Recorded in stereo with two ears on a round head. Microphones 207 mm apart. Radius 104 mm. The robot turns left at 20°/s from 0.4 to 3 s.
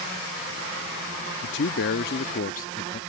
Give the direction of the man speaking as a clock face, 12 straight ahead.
10 o'clock.